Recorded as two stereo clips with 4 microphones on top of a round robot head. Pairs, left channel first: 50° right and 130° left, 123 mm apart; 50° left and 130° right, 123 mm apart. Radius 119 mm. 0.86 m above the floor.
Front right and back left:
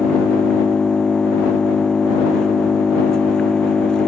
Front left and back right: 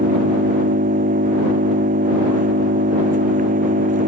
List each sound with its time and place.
0.0 s an engine running: 135° right